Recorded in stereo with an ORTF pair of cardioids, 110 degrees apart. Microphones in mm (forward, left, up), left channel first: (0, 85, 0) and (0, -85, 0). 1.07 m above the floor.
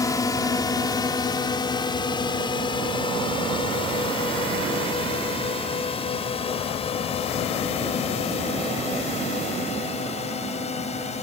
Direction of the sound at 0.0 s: 20° left.